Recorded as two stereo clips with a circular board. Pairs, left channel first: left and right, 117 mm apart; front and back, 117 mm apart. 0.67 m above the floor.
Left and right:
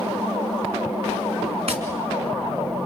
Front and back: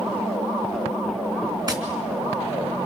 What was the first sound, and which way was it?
Tapping, 125° right.